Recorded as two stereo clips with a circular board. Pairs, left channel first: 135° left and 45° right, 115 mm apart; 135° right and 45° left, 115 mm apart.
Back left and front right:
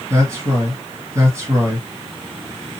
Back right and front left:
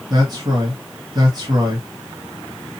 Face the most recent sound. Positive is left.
turn(degrees=10)